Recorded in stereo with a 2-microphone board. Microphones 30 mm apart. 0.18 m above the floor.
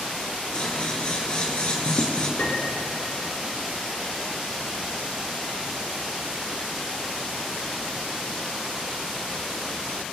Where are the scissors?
40° left (ahead or behind), 2.5 m.